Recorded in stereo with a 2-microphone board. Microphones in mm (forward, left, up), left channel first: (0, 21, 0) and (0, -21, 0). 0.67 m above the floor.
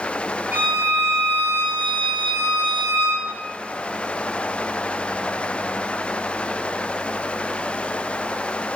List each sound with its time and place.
0.5 s a violin: 40° right (ahead or behind), 1.3 m